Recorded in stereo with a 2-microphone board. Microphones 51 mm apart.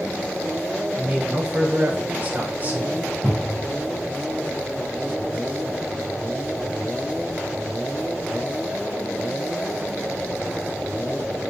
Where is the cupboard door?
5° left (ahead or behind), 4.5 m.